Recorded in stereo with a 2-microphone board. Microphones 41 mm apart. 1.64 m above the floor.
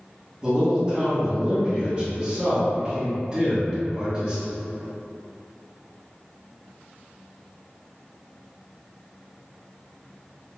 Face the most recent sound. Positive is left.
turn(degrees=-20)  # may be behind; listen again after turning